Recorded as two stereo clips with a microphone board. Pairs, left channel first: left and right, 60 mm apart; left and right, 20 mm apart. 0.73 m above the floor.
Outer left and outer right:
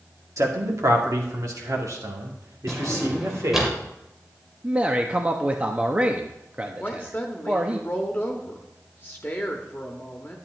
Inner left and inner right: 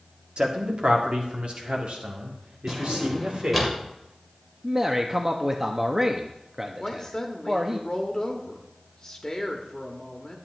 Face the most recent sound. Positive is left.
turn(degrees=35)  # may be behind; listen again after turning